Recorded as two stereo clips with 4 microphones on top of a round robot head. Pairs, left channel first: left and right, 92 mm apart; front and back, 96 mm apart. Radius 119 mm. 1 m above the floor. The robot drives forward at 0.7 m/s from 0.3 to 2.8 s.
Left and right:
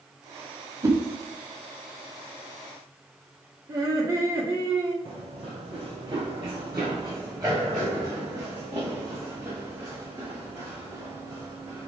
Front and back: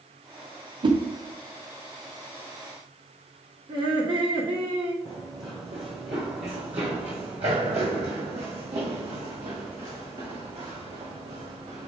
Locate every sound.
0.8 s a whoosh: 145° right, 0.9 m; by 1.0 s 150° right, 1.0 m
3.7 s laughter: 145° right, 2.0 m
5.0 s running footsteps: 115° right, 1.1 m; by 11.9 s 160° right, 4 m